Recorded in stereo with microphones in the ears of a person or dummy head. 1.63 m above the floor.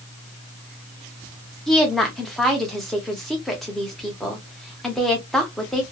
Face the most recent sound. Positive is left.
turn(degrees=0)  # may be behind; listen again after turning